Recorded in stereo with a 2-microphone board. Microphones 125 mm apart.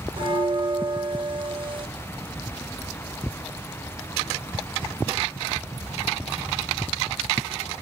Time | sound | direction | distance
0.2 | a bell | 40° right (ahead or behind) | 2.5 m